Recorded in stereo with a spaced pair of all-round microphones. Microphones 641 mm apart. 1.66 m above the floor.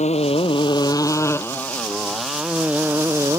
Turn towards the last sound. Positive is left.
turn(degrees=-5)  # may be behind; listen again after turning